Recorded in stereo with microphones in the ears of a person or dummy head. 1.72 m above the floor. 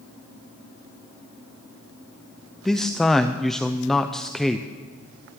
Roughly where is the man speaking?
Centre.